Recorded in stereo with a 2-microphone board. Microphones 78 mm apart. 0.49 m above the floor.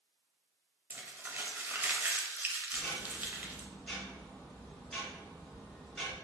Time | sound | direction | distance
0.9 | crumpling | 25° right (ahead or behind) | 0.6 m
2.7 | ticking | 5° left (ahead or behind) | 1.5 m